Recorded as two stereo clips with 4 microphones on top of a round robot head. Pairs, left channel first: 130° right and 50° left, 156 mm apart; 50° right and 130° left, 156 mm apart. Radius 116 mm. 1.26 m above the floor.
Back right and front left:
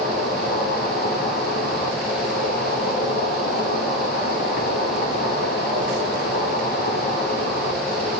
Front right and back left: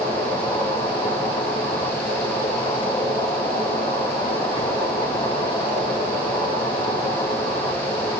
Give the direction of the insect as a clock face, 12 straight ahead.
4 o'clock.